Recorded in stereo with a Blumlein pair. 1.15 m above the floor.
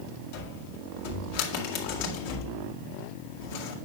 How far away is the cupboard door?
About 2 m.